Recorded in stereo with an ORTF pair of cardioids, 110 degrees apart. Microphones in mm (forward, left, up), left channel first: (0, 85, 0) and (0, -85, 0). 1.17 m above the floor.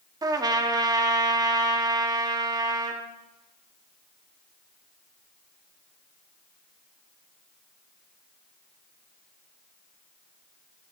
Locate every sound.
0.2 s a trumpet: 25° right, 1.8 m